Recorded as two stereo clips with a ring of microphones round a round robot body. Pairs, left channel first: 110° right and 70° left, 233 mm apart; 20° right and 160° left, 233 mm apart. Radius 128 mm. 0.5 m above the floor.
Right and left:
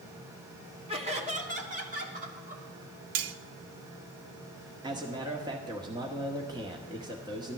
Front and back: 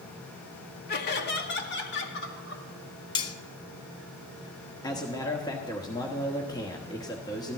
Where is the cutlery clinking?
50° left, 0.6 m.